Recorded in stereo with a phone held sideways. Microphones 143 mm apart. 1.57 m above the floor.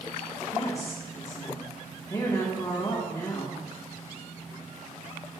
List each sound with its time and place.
0.5 s a woman speaking: 25° left (ahead or behind), 1.8 m